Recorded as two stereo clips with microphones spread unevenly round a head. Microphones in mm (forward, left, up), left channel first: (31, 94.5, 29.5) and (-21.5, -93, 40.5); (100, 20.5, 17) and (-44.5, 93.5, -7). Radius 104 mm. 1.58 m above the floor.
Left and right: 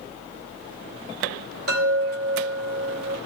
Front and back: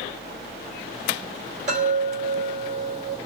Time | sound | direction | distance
1.7 | a chime | 150° right | 3 m